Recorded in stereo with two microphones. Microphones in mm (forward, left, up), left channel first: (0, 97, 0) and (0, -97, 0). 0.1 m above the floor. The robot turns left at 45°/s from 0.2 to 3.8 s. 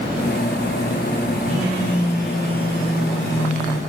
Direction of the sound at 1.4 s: 135° right.